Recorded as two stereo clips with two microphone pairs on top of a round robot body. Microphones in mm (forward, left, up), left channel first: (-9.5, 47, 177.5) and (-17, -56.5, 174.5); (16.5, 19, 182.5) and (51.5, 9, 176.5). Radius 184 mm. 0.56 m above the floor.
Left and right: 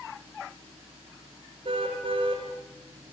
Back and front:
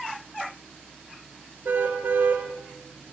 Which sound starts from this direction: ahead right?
A car horn, at 1.6 s.